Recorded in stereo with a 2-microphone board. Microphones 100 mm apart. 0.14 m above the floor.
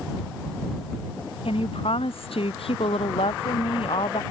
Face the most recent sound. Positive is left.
turn(degrees=80)